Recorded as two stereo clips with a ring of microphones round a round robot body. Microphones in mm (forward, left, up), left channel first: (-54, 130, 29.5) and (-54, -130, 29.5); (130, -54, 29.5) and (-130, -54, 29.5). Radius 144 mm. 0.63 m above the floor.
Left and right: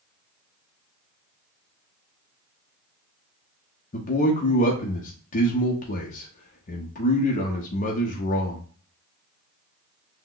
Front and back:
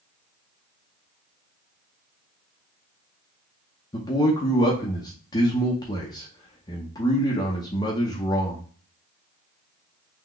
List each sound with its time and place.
3.9 s a man speaking: 60° left, 0.7 m